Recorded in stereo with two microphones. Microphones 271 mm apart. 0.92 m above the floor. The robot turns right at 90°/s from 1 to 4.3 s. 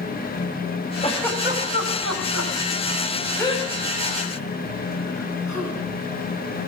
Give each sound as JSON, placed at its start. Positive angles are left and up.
{"t": 1.0, "sound": "a giggle", "side_deg": 25, "distance_m": 5.5}